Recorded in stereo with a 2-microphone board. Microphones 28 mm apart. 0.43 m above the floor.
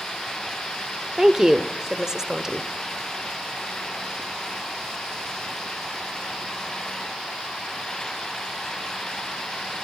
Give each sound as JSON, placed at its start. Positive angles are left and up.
{"t": 1.2, "sound": "a woman speaking", "side_deg": -20, "distance_m": 1.2}